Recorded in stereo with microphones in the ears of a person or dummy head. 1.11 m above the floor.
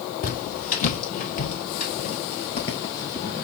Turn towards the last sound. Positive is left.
turn(degrees=10)  # may be behind; listen again after turning